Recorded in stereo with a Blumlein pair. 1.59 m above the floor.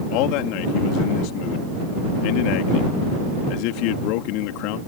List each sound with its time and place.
0.1 s a man speaking: 40° left